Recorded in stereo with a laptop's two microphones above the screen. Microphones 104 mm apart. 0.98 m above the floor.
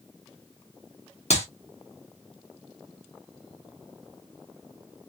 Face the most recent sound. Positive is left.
turn(degrees=80)